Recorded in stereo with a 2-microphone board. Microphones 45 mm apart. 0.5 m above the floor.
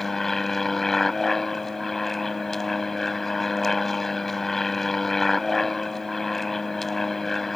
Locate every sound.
0.0 s an aircraft: 10° left (ahead or behind)